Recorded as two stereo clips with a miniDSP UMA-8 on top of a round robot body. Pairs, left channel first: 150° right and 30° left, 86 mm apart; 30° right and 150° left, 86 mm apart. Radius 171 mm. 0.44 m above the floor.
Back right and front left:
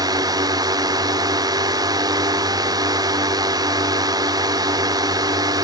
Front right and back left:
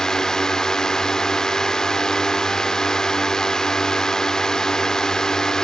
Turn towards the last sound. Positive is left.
turn(degrees=50)